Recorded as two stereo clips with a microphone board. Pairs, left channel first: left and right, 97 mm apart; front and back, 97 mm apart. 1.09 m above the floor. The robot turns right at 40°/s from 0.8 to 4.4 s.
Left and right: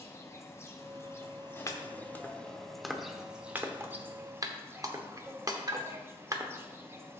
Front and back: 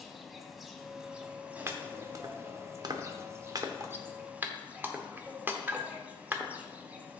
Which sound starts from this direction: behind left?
Chopping, at 1.7 s.